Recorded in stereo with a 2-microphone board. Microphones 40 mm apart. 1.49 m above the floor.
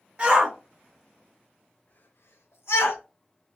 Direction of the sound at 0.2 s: 30° right (ahead or behind).